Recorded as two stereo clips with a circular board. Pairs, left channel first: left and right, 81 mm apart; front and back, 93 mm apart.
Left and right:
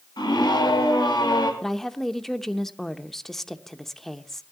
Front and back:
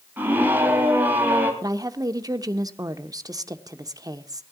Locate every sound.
0.2 s a scream: 110° left, 3 m
1.6 s a woman speaking: 175° left, 0.9 m